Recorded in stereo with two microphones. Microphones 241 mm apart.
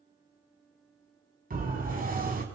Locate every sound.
1.5 s a siren: 40° right (ahead or behind), 5 m